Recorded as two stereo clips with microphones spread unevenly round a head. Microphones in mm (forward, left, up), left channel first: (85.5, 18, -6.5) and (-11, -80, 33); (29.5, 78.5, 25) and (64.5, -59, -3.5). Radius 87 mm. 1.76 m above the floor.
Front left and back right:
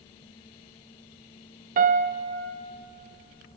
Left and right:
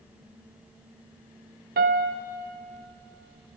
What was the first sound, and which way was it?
A piano, 120° right.